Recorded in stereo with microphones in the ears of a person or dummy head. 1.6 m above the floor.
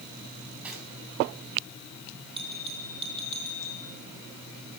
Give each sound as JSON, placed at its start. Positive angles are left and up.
{"t": 0.6, "sound": "cutlery clinking", "side_deg": 0, "distance_m": 8.0}
{"t": 2.4, "sound": "a bell", "side_deg": -25, "distance_m": 3.5}